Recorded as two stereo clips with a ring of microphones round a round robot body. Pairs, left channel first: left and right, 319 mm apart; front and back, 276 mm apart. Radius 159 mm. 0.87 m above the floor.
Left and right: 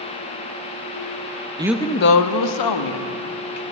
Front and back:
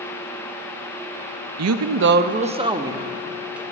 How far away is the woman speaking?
About 0.6 m.